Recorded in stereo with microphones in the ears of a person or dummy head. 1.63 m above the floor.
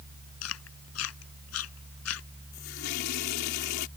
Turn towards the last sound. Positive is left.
turn(degrees=65)  # may be behind; listen again after turning